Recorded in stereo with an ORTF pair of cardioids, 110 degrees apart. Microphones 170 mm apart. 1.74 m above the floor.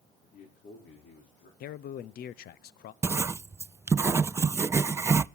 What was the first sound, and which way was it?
A man speaking, 70° left.